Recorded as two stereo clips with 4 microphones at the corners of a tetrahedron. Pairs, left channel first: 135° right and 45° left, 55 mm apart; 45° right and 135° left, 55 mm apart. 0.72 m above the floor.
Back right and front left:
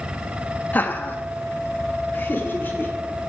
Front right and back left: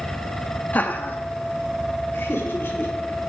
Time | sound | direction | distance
0.7 | laughter | 90° right | 0.8 m